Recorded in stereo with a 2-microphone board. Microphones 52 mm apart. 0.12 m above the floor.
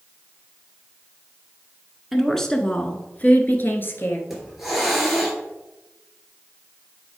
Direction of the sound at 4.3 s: 5° right (ahead or behind).